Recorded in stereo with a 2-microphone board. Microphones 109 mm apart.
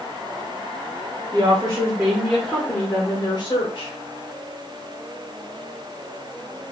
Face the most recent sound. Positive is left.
turn(degrees=55)  # may be behind; listen again after turning